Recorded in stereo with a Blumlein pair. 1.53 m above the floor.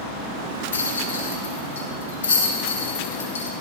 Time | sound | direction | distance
0.7 | a rattle | 60° left | 2 m